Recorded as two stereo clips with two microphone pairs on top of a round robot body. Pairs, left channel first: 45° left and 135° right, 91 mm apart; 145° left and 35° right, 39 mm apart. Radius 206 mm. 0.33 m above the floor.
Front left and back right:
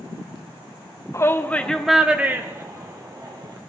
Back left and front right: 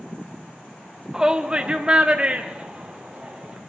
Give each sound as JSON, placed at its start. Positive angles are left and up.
{"t": 1.1, "sound": "a shout", "azimuth_deg": 35, "distance_m": 1.3}